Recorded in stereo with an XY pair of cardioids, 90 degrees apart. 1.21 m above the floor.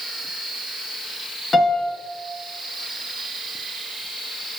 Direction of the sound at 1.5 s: 35° left.